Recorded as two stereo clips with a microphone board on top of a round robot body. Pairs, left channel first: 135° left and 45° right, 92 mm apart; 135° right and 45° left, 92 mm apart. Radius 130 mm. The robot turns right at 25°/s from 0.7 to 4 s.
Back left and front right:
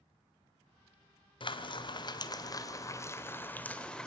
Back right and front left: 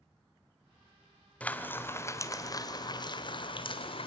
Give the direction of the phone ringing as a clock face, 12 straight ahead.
I don't hear a phone ringing.